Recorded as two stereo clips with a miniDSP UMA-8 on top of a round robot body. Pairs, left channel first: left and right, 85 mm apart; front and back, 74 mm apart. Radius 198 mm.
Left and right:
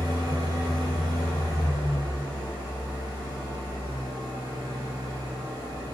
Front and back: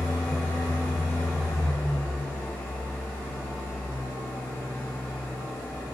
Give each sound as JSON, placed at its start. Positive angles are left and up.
{"t": 0.0, "sound": "an engine running", "azimuth_deg": -65, "distance_m": 1.5}